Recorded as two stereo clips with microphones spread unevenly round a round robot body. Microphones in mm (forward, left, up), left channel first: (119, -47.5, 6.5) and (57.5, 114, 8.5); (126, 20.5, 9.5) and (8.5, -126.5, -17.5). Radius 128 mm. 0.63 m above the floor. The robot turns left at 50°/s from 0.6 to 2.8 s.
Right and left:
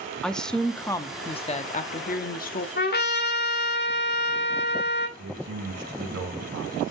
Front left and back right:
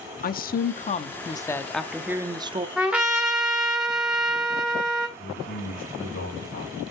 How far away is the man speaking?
About 3 m.